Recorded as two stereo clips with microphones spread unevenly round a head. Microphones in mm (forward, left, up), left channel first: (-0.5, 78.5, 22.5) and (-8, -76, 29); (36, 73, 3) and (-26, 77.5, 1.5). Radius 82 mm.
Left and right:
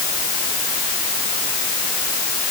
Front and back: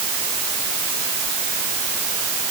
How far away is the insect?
I don't hear an insect.